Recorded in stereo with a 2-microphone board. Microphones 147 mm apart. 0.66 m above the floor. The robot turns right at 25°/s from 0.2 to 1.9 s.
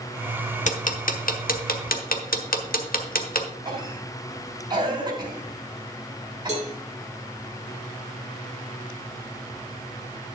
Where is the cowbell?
50° right (ahead or behind), 2 m.